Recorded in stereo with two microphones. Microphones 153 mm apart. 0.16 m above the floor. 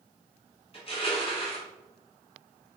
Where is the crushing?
40° left (ahead or behind), 1.3 m.